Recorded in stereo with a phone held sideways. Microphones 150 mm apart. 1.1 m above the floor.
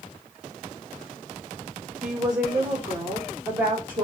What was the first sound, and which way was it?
A woman speaking, 10° right (ahead or behind).